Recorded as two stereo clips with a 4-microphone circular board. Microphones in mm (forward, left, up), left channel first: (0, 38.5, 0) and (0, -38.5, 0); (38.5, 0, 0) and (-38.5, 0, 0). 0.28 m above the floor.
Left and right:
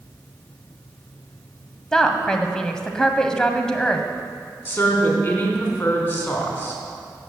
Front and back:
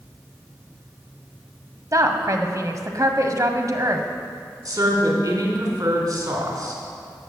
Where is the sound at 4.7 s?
155° left, 3.5 m.